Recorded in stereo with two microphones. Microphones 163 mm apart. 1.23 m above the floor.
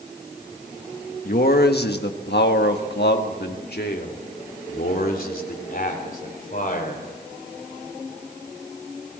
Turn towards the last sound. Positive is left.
turn(degrees=50)  # may be behind; listen again after turning